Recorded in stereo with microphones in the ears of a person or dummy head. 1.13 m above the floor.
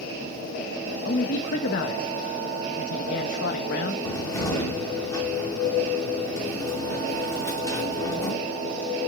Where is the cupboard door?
20° left (ahead or behind), 1.9 m.